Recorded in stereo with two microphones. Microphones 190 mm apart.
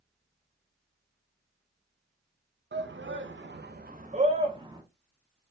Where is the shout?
70° right (ahead or behind), 0.6 m; by 4.8 s 20° right (ahead or behind), 0.9 m.